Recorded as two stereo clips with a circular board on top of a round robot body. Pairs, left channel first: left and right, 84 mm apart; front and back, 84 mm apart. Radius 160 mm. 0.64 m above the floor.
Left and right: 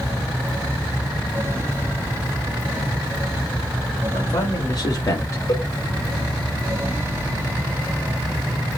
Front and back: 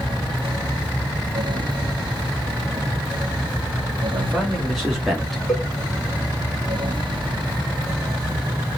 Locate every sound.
4.1 s a man speaking: 95° left, 1.8 m; by 5.4 s 90° left, 1.0 m
5.5 s a cowbell: 95° left, 2.5 m